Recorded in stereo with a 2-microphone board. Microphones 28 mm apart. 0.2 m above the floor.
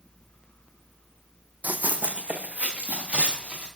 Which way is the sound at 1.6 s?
75° right (ahead or behind).